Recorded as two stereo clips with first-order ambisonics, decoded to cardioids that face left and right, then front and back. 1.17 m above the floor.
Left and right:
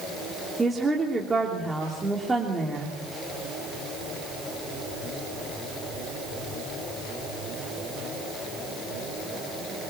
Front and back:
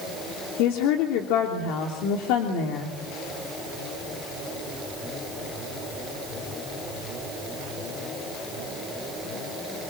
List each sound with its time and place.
0.6 s a woman speaking: 10° right, 3 m